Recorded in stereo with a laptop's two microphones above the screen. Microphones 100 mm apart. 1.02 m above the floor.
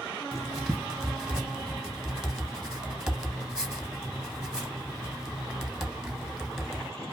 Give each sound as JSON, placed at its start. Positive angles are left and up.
{"t": 0.3, "sound": "writing", "side_deg": -5, "distance_m": 0.9}